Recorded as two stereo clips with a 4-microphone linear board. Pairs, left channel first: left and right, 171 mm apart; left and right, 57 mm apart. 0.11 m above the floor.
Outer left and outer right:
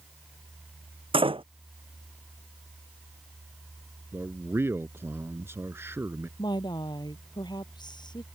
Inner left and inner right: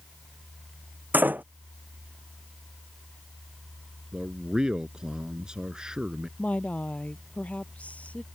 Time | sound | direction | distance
1.1 | a door slam | 30° right (ahead or behind) | ?
4.1 | a man speaking | 15° right (ahead or behind) | ?
6.4 | a woman speaking | 25° left (ahead or behind) | ?